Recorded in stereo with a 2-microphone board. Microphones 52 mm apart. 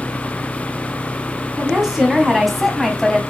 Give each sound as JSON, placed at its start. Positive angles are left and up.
{"t": 1.6, "sound": "a woman speaking", "side_deg": -10, "distance_m": 3.0}